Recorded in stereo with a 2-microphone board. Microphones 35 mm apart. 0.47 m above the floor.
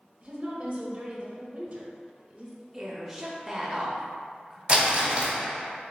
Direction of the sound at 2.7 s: 5° right (ahead or behind).